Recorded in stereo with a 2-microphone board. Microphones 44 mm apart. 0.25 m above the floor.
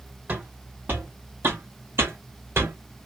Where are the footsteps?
40° right (ahead or behind), 1.5 m; by 2.8 s 80° right, 1.2 m.